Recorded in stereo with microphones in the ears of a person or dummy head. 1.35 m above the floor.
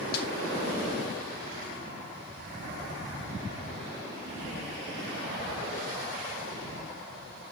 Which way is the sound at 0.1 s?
55° left (ahead or behind).